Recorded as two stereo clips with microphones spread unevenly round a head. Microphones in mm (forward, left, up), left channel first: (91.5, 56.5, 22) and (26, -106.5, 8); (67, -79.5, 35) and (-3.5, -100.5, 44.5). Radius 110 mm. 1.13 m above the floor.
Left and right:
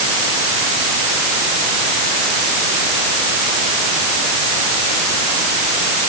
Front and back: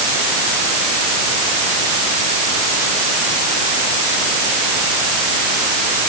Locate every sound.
Only background noise.